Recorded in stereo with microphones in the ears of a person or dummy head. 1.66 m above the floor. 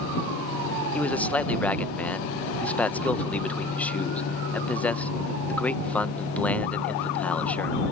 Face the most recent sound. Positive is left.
turn(degrees=5)  # may be behind; listen again after turning